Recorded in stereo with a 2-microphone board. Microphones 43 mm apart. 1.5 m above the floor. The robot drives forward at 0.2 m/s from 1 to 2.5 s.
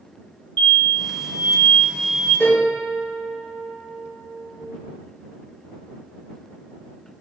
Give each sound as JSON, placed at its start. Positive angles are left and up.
{"t": 0.6, "sound": "an explosion", "side_deg": 35, "distance_m": 1.5}
{"t": 2.4, "sound": "a piano", "side_deg": 65, "distance_m": 2.0}